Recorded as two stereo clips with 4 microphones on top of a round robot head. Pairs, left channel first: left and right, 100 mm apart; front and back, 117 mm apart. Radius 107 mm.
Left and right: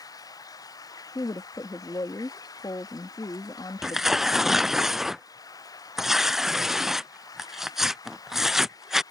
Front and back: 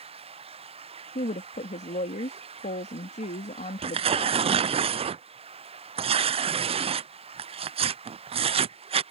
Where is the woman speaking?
20° left.